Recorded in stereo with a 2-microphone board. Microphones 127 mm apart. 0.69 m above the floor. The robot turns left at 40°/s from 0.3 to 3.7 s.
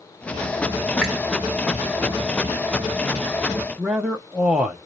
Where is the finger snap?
5° left (ahead or behind), 1.6 m; by 1.2 s 10° left (ahead or behind), 1.6 m.